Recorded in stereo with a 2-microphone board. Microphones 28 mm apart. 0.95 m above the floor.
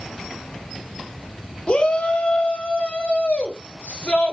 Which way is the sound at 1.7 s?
40° left (ahead or behind).